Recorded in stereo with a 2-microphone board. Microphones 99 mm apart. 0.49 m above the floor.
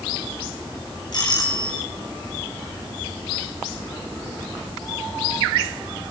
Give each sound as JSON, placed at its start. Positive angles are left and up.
{"t": 1.1, "sound": "a doorbell", "side_deg": 50, "distance_m": 6.5}